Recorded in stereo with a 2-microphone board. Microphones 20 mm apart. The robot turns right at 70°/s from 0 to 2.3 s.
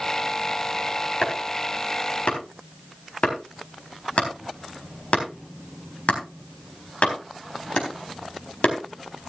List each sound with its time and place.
1.2 s chopping: 30° left (ahead or behind), 4 m; by 8.8 s 70° left (ahead or behind), 4 m